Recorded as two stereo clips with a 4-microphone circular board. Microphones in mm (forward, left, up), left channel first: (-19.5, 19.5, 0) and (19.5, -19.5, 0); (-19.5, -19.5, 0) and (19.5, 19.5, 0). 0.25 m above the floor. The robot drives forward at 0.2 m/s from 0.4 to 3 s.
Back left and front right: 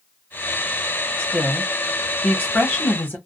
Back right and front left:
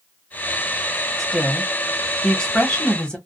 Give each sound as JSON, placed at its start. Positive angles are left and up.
{"t": 1.2, "sound": "a woman speaking", "azimuth_deg": 150, "distance_m": 1.1}